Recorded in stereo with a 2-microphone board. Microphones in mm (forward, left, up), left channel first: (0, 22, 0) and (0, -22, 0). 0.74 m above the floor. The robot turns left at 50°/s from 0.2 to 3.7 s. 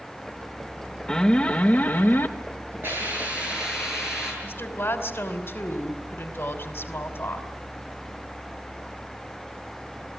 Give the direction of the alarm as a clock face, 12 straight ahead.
7 o'clock.